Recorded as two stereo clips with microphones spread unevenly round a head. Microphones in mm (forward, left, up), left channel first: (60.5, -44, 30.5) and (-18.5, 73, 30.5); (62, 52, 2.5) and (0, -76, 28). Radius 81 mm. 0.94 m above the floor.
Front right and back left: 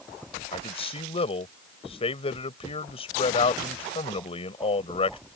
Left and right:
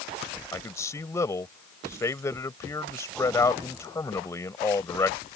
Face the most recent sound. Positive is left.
turn(degrees=-5)